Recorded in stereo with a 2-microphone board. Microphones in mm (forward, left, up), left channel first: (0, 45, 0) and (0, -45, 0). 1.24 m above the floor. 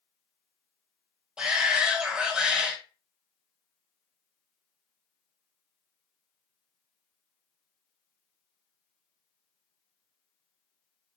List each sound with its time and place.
1.4 s a shout: 10° right (ahead or behind), 1.1 m